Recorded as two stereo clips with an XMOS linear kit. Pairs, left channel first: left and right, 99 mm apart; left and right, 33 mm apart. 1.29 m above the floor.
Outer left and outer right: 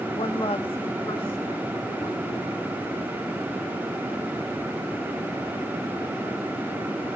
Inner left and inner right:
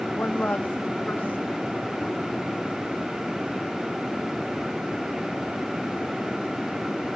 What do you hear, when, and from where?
0.2 s a woman speaking: 60° left (ahead or behind), 1.0 m; by 2.6 s 70° left (ahead or behind), 4.5 m